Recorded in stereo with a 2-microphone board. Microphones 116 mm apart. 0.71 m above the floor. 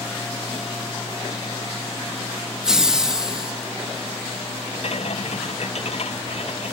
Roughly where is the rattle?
Left.